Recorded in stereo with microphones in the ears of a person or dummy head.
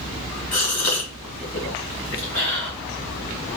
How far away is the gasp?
About 1.0 m.